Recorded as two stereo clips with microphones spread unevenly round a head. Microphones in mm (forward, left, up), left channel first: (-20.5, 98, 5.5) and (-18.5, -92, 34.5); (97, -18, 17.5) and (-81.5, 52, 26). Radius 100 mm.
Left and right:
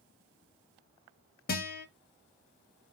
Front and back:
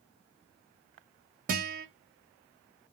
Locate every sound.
1.5 s a guitar: 115° left, 0.7 m